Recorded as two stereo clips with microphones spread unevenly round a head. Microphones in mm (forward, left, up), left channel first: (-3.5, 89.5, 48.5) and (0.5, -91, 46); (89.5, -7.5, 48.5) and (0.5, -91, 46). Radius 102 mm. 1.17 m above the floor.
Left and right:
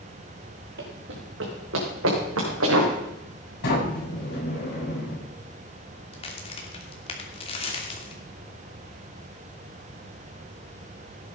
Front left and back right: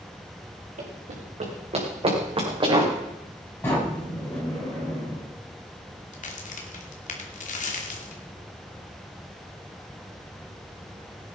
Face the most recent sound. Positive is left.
turn(degrees=30)